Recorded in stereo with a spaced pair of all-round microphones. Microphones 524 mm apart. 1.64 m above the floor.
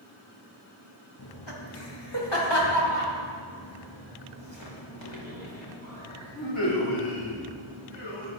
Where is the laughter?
50° left (ahead or behind), 2.5 m; by 8.3 s 65° left (ahead or behind), 6.5 m.